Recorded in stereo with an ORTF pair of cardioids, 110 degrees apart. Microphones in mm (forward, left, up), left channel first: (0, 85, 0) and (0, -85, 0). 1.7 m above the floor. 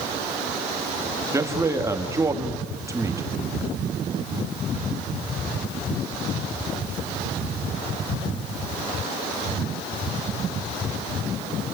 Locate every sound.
1.3 s a man speaking: 15° right, 2.5 m